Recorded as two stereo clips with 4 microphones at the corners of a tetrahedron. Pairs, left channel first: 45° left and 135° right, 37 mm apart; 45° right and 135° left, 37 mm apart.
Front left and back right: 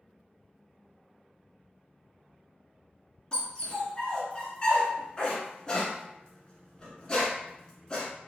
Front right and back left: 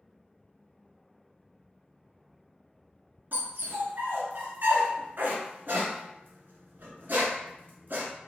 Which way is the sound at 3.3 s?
110° left.